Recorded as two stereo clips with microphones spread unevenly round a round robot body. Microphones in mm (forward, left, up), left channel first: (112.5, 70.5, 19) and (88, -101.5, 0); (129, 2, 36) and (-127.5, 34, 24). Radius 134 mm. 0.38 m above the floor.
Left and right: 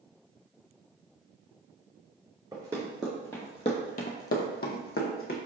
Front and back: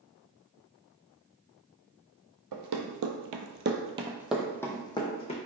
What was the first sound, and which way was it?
Running footsteps, 175° right.